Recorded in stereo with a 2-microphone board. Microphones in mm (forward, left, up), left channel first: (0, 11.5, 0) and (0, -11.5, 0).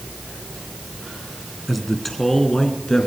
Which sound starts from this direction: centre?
A man speaking, at 1.7 s.